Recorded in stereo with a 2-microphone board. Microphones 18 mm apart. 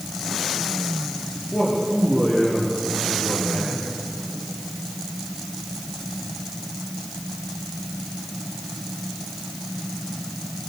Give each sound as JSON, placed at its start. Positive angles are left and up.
{"t": 1.5, "sound": "a man speaking", "side_deg": 75, "distance_m": 8.5}